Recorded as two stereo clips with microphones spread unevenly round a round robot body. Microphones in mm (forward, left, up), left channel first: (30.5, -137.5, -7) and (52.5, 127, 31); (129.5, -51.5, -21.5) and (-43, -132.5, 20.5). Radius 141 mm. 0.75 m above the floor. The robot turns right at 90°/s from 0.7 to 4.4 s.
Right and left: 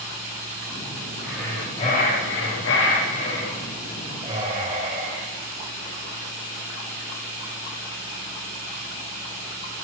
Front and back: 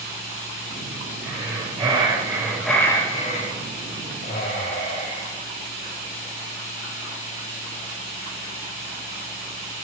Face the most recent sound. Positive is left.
turn(degrees=70)